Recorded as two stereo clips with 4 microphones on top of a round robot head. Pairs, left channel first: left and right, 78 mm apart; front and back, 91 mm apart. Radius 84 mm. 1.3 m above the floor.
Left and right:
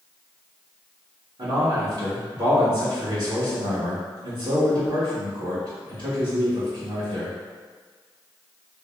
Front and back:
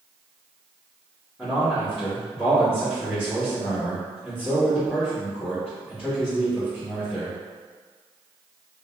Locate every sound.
1.4 s a man speaking: 90° right, 1.4 m